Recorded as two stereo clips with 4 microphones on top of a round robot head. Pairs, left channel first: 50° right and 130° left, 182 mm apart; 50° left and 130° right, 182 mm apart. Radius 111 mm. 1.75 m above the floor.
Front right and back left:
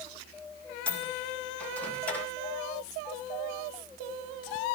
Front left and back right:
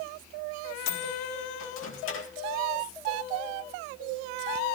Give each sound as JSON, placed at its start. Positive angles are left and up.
{"t": 0.9, "sound": "a microwave", "azimuth_deg": 35, "distance_m": 2.5}